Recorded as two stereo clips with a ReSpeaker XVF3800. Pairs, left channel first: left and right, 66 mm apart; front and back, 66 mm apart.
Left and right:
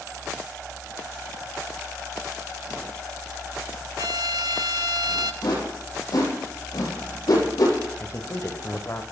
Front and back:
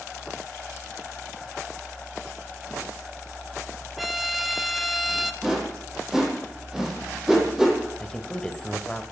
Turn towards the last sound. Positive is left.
turn(degrees=75)